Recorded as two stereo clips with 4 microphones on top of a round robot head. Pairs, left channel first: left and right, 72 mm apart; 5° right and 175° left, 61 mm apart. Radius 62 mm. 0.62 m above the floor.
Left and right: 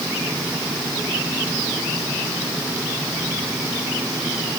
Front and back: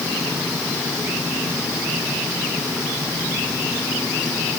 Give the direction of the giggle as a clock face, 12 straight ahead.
I don't hear a giggle.